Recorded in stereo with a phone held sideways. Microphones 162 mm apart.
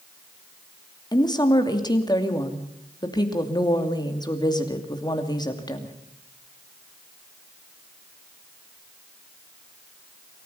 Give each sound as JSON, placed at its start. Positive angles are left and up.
{"t": 1.1, "sound": "a woman speaking", "side_deg": 25, "distance_m": 2.5}